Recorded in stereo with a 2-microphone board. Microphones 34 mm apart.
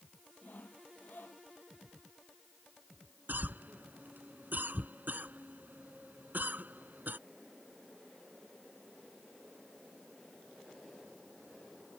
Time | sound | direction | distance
0.4 | sawing | 70° left (ahead or behind) | ?
3.3 | a cough | 65° right (ahead or behind) | ?